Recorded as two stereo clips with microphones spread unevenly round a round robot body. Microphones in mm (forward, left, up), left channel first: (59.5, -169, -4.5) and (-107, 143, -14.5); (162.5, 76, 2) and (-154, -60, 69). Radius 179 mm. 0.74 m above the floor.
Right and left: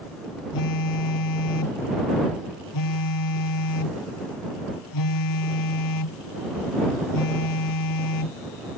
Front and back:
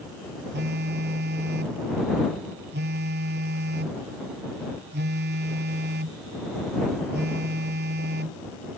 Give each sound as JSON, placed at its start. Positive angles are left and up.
{"t": 0.5, "sound": "a phone buzzing", "azimuth_deg": -95}